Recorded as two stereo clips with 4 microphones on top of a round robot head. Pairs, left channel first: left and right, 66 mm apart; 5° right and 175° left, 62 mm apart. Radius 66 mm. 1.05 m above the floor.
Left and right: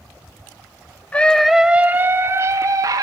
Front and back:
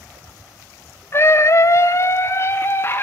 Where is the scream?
25° left, 0.6 m; by 3.0 s 60° right, 1.1 m.